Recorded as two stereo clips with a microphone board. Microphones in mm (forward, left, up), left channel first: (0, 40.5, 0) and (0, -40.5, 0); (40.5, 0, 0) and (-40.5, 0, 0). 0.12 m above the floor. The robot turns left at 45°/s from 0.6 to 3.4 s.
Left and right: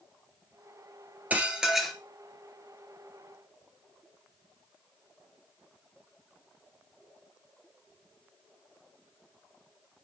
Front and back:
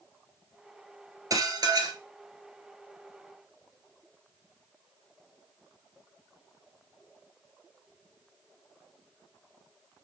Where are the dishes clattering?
155° right, 1.5 m; by 2.0 s 175° left, 1.5 m.